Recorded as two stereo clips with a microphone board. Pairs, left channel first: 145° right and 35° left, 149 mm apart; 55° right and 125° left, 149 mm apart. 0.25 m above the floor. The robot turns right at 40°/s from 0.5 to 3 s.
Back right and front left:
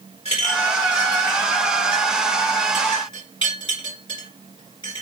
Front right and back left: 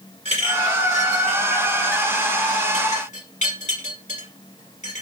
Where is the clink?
170° left, 2.5 m; by 5.0 s 90° right, 2.5 m.